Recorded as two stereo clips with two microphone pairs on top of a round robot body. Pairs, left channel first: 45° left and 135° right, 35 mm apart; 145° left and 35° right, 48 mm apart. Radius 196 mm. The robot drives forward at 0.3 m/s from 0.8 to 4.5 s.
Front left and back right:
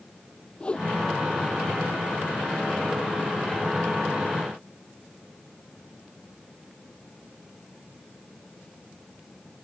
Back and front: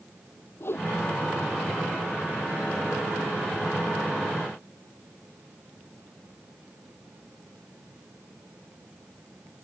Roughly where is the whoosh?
Left.